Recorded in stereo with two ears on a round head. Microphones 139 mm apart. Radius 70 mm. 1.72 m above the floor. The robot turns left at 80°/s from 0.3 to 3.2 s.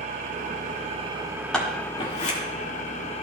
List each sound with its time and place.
0.0 s an engine running: 70° right, 0.8 m; by 3.2 s 55° left, 0.8 m
1.5 s scissors: 5° left (ahead or behind), 1.8 m; by 2.4 s 55° left (ahead or behind), 1.8 m